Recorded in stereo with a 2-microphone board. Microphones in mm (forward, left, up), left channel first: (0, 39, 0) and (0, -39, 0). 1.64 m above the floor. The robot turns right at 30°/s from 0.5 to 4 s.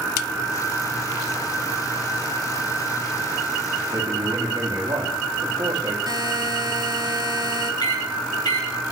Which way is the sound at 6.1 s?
60° right (ahead or behind).